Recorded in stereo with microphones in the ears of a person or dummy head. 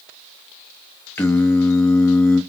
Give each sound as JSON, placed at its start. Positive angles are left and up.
{"t": 1.2, "sound": "singing", "side_deg": 10, "distance_m": 0.8}